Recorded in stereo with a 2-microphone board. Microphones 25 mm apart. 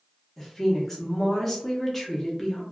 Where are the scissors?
No scissors in this recording.